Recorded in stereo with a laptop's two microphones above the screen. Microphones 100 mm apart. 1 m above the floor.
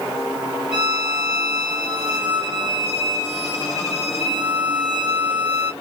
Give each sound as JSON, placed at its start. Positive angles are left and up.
{"t": 0.7, "sound": "a violin", "side_deg": -5, "distance_m": 2.0}